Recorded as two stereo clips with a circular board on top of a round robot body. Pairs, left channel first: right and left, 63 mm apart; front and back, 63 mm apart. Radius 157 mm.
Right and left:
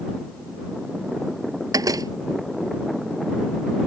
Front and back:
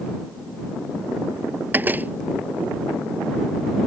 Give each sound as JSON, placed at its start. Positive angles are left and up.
{"t": 1.7, "sound": "a door slam", "azimuth_deg": 115}